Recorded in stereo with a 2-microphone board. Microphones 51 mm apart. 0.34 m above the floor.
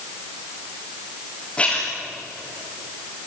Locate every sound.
1.6 s a splash: 20° left (ahead or behind), 7.5 m